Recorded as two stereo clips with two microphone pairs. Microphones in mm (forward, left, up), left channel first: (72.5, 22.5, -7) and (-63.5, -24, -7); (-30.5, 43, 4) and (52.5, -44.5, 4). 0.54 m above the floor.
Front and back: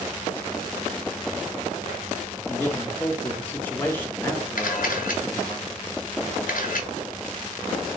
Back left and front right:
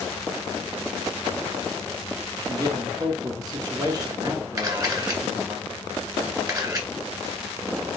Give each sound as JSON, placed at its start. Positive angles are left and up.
{"t": 2.5, "sound": "a man speaking", "azimuth_deg": -45, "distance_m": 0.7}
{"t": 4.6, "sound": "a camera shutter", "azimuth_deg": 10, "distance_m": 1.6}